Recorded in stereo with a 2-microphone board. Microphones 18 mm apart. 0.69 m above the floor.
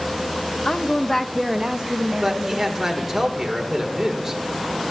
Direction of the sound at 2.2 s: 20° right (ahead or behind).